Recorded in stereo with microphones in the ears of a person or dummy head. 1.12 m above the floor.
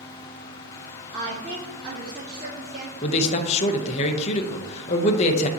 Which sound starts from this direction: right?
A woman speaking, at 1.1 s.